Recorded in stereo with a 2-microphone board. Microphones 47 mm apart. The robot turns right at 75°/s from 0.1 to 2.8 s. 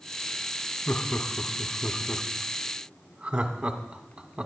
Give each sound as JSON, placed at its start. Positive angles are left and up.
{"t": 0.9, "sound": "laughter", "side_deg": 40, "distance_m": 1.2}